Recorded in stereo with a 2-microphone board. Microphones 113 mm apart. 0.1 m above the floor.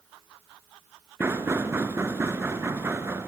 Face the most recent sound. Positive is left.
turn(degrees=-20)  # may be behind; listen again after turning